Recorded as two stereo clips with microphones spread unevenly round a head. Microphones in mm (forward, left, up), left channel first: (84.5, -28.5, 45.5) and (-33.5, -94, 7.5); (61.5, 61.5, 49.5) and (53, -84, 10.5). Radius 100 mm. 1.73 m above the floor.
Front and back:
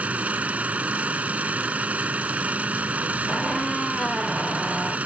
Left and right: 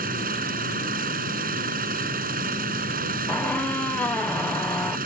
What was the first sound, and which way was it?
An engine running, 70° right.